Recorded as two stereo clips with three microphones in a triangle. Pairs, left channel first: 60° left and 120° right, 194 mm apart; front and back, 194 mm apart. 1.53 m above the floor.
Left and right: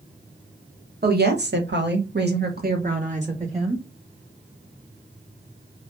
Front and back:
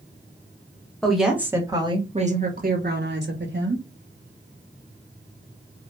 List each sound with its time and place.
1.0 s a woman speaking: 90° right, 1.1 m; by 3.8 s straight behind, 1.5 m